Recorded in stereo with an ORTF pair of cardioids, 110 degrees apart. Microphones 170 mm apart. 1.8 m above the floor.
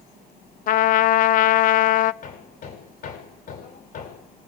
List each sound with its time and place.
0.7 s a trumpet: 55° left, 0.7 m
2.2 s hammering: 55° left, 6.5 m